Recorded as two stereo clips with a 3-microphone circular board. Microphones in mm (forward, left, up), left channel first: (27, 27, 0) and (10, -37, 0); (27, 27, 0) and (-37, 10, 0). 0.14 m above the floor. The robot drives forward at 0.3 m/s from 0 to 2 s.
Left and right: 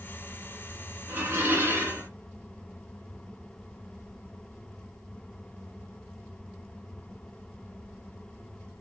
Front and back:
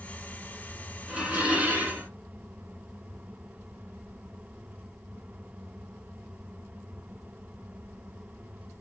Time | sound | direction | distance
1.1 | dishes clattering | 105° right | 1.1 m